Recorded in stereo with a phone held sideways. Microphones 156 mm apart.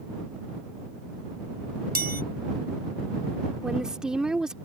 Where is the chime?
80° right.